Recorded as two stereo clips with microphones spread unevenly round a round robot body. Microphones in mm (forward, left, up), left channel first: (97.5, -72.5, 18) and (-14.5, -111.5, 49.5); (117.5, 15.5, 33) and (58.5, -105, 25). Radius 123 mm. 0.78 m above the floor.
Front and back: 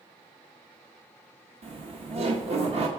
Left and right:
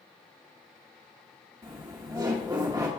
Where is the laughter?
155° right, 0.9 m.